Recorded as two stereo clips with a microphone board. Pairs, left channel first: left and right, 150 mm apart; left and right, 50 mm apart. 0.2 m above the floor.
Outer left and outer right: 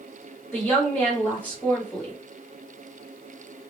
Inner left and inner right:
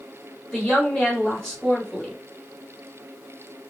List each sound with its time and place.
0.5 s a woman speaking: 10° left (ahead or behind), 1.5 m